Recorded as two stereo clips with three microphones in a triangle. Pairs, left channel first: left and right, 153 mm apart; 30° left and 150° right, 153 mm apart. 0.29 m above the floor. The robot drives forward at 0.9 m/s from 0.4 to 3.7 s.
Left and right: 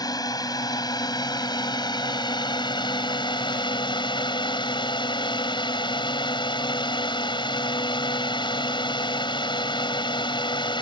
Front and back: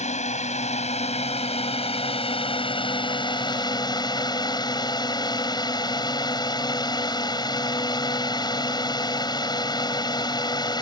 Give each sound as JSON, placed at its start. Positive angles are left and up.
{"t": 0.0, "sound": "a drone", "azimuth_deg": 35}